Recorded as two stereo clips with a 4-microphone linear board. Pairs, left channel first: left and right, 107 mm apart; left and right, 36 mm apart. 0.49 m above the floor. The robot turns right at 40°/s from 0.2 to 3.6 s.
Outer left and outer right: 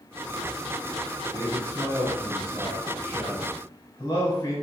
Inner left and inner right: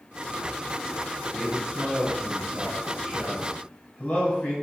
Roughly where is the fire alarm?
No fire alarm in this recording.